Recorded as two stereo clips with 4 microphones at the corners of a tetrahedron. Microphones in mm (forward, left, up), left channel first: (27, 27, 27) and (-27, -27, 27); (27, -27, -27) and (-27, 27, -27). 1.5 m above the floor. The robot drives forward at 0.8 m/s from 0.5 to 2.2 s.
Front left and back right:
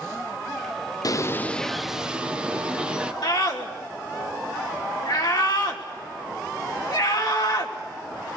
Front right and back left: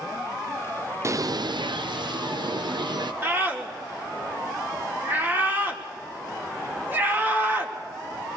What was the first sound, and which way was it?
A bird, 80° left.